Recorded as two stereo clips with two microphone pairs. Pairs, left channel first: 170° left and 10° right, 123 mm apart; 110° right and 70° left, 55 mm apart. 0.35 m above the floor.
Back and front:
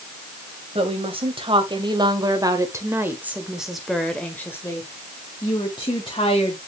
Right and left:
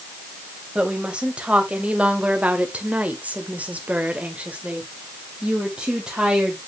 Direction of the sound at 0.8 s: 5° left.